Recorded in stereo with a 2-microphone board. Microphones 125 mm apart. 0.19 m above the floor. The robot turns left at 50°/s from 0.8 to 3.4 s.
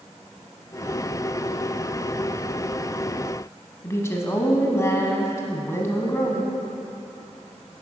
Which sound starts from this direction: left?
A woman speaking, at 3.8 s.